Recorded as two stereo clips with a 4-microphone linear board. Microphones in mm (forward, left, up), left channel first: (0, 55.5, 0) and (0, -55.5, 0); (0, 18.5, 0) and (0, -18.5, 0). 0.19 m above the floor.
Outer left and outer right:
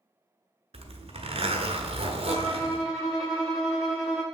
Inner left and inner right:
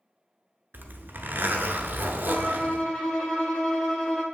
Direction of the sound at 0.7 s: 60° right (ahead or behind).